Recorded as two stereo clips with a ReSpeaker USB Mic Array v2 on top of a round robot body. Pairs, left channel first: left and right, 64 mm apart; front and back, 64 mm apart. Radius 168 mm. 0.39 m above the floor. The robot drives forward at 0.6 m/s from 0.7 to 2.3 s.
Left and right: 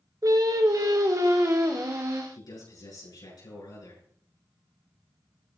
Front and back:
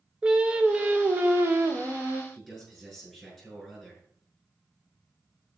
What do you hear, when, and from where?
0.2 s singing: 110° right, 1.4 m; by 2.2 s 135° right, 1.9 m
2.3 s a man speaking: 95° left, 8 m